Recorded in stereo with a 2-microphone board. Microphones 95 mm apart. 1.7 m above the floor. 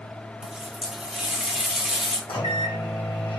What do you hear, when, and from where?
0.4 s a running tap: 5° right (ahead or behind), 0.7 m
2.3 s a microwave: 75° left (ahead or behind), 1.3 m